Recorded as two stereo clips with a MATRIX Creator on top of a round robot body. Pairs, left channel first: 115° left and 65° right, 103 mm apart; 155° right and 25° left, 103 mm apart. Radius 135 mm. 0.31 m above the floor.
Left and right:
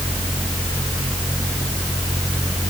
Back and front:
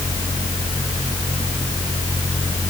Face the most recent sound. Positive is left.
No sound to turn to.